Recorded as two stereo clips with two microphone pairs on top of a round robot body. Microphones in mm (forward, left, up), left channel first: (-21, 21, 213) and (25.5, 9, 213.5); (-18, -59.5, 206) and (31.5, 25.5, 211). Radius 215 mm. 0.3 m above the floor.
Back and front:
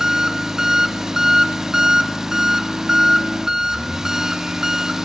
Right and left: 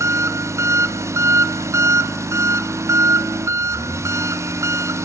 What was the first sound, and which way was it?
An engine running, 55° left.